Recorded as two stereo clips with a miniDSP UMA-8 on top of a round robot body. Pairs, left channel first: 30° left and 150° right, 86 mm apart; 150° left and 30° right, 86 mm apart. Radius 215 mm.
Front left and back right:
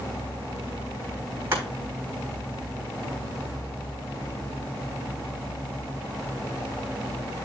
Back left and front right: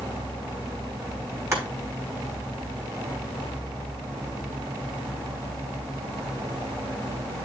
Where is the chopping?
85° right, 5 m.